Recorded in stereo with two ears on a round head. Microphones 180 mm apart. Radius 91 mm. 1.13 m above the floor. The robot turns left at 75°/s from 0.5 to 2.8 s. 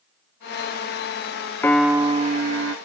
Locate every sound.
1.6 s a piano: 10° left, 0.8 m; by 2.8 s 75° right, 0.8 m